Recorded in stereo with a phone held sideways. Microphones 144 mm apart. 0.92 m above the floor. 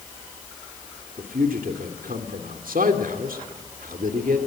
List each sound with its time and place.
1.2 s a man speaking: 80° right, 2.5 m